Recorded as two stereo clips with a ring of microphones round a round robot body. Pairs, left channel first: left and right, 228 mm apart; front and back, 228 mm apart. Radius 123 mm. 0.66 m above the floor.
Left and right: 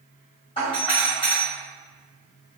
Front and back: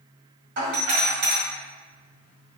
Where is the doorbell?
155° left, 1.7 m.